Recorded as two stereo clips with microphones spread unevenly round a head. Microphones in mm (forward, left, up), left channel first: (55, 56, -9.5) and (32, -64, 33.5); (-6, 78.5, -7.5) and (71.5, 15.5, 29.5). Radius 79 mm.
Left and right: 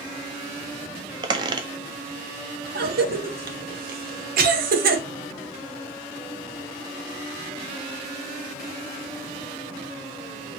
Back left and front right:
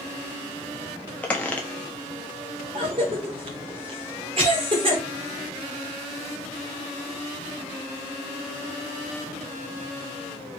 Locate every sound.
1.2 s a squeak: 125° right, 0.5 m
2.8 s a cough: 100° right, 1.2 m